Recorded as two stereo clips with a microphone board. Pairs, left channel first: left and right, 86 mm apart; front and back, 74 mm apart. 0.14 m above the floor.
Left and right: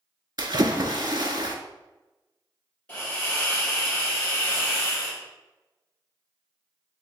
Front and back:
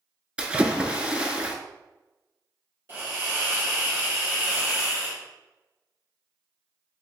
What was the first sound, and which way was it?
A splash, 105° right.